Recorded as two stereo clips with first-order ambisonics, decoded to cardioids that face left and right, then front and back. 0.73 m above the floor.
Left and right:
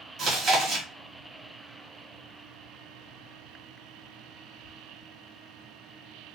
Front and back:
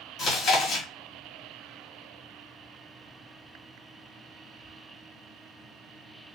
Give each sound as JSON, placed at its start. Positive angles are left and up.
{"t": 0.2, "sound": "chewing", "azimuth_deg": -35, "distance_m": 1.1}